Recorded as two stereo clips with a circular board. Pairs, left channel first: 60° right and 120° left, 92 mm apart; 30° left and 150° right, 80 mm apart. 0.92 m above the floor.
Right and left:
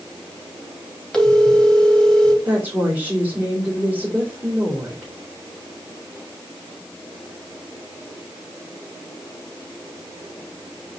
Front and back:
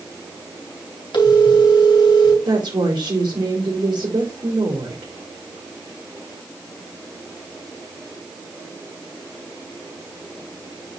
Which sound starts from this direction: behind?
A woman speaking, at 2.5 s.